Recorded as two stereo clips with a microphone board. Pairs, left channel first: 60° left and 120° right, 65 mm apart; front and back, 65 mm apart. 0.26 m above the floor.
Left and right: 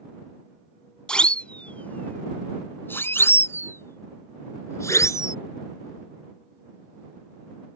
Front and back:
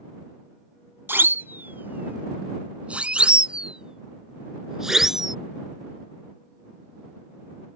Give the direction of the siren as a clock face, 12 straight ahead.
7 o'clock.